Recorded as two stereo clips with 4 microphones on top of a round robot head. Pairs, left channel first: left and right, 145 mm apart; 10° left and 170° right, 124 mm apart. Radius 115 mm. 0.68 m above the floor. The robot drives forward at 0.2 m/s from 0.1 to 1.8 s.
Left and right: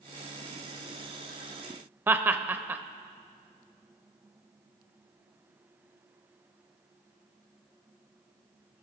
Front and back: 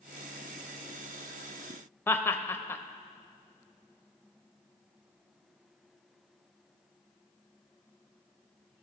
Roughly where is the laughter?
Ahead right.